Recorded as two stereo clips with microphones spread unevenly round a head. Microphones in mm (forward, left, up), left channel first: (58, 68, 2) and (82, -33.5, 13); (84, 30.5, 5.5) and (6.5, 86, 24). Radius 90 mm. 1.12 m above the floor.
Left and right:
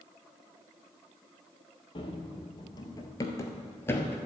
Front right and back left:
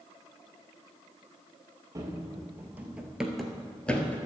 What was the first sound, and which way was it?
Running footsteps, 140° left.